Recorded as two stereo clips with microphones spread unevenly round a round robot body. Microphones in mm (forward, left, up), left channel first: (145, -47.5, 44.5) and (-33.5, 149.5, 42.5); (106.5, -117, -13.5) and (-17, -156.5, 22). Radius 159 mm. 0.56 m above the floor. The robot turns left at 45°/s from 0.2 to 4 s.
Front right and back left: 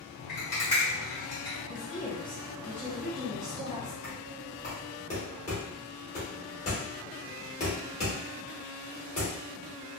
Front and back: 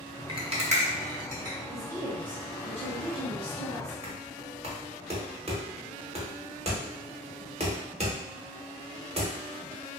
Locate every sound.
0.3 s a rattle: 100° right, 1.1 m; by 1.6 s 160° right, 1.1 m
1.7 s a woman speaking: 80° right, 0.7 m; by 3.9 s straight behind, 0.7 m
4.0 s knocking: 115° right, 1.0 m